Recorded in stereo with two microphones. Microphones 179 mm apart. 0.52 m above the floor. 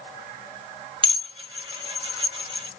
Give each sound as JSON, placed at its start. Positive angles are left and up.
{"t": 1.0, "sound": "dishes clattering", "side_deg": -30, "distance_m": 0.8}